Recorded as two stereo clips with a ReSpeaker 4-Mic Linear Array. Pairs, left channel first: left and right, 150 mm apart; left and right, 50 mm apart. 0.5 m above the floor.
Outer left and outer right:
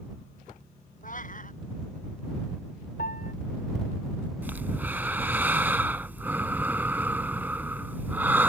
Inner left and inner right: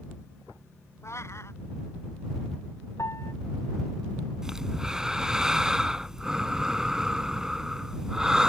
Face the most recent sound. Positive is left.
turn(degrees=-15)  # may be behind; listen again after turning